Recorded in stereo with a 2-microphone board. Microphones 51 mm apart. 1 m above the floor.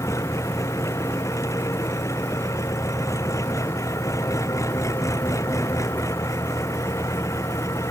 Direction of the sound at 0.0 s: 75° left (ahead or behind).